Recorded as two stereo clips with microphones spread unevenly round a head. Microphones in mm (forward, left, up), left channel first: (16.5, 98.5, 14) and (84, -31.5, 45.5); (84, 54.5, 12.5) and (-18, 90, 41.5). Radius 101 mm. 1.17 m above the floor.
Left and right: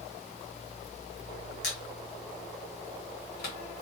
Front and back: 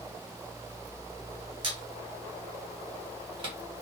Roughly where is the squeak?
Behind.